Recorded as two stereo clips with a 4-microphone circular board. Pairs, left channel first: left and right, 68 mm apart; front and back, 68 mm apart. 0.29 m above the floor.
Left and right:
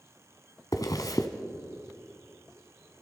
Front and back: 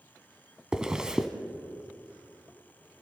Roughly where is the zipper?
Left.